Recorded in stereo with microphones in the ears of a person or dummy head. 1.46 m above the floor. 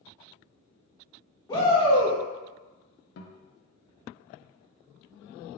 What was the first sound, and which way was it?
A shout, 25° left (ahead or behind).